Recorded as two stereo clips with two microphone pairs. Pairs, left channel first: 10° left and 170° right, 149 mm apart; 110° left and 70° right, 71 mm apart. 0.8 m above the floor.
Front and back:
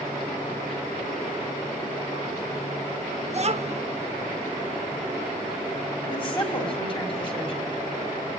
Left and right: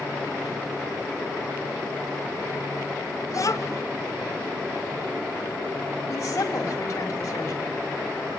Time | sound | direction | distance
3.3 | a child speaking | 145° left | 1.3 m
6.1 | a woman speaking | 65° left | 4.5 m